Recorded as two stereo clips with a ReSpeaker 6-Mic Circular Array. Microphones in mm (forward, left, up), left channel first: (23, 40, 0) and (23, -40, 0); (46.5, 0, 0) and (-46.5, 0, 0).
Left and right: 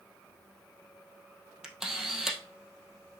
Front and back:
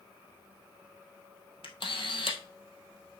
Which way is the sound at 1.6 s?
5° right.